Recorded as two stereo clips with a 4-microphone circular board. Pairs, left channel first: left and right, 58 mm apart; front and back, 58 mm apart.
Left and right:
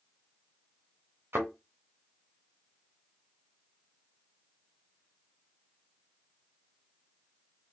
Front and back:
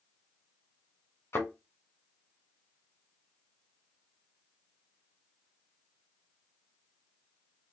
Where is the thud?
45° right, 2.5 m.